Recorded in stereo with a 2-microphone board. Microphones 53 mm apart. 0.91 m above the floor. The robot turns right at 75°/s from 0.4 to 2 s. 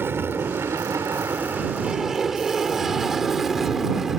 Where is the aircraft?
45° right (ahead or behind); by 4.2 s 5° right (ahead or behind).